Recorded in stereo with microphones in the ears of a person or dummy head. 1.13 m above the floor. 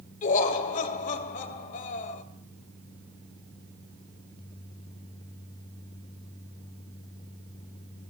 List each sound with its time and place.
0.2 s laughter: 40° left (ahead or behind), 1.6 m